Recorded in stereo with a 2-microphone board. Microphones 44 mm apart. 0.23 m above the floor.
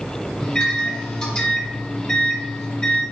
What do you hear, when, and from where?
0.4 s a microwave: 20° left (ahead or behind), 1.0 m